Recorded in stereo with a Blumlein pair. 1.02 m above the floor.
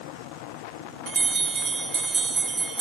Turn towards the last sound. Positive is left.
turn(degrees=-20)